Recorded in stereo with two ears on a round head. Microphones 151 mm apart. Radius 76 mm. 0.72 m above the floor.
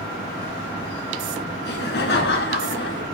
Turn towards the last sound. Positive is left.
turn(degrees=70)  # may be behind; listen again after turning